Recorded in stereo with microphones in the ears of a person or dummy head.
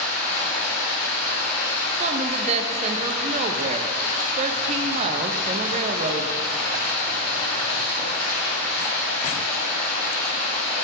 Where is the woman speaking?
40° right (ahead or behind), 0.5 m.